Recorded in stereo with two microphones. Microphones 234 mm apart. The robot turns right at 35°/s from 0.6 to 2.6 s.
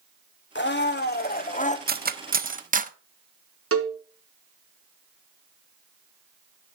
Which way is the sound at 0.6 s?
100° left.